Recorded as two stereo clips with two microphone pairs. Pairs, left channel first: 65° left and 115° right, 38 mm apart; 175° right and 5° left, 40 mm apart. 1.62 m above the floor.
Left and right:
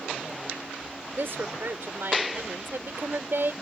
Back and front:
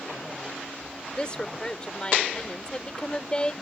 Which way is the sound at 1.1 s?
110° right.